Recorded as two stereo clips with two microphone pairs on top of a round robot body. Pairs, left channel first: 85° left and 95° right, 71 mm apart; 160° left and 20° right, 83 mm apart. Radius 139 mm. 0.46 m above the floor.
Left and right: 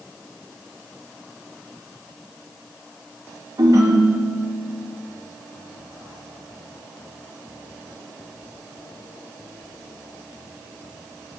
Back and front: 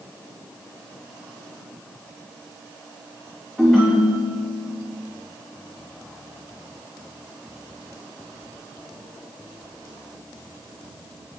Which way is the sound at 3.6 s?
120° right.